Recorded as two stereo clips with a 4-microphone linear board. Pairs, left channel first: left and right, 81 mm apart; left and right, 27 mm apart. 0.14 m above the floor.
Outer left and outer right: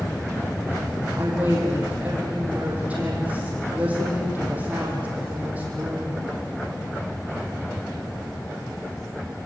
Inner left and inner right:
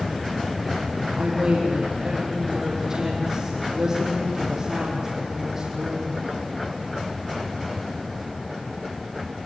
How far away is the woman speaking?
About 5 m.